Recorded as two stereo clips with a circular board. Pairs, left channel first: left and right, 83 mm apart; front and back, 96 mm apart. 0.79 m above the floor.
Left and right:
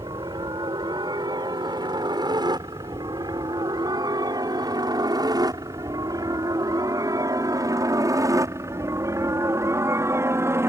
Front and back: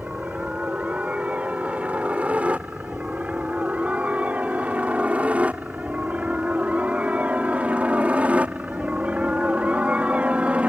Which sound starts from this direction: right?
A helicopter, at 0.0 s.